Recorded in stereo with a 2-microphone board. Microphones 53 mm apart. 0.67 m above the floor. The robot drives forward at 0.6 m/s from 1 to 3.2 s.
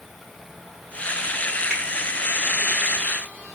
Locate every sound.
1.7 s a finger snap: 10° right (ahead or behind), 1.3 m